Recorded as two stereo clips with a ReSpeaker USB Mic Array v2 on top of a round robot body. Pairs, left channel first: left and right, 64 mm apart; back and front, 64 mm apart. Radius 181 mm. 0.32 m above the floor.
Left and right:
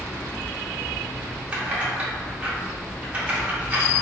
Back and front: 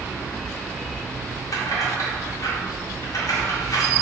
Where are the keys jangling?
160° right, 1.4 m.